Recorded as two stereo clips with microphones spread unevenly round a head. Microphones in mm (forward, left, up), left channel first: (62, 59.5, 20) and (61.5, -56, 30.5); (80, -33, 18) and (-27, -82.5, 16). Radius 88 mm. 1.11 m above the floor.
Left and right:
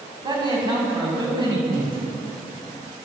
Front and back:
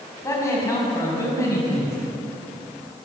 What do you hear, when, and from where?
0.2 s a man speaking: 40° right, 8 m